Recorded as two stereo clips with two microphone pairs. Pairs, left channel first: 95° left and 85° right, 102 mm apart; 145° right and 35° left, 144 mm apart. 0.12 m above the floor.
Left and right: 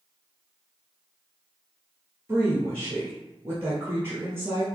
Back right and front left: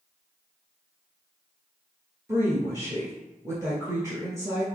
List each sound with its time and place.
2.3 s a woman speaking: 30° right, 1.6 m